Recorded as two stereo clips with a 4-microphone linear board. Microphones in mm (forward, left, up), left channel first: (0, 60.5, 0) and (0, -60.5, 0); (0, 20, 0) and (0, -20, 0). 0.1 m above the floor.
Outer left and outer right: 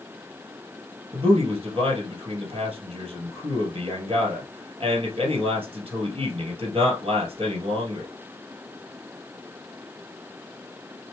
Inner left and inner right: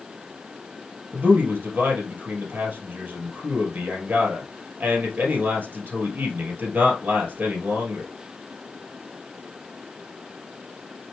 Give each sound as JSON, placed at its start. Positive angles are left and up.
{"t": 1.1, "sound": "a man speaking", "side_deg": -50, "distance_m": 2.0}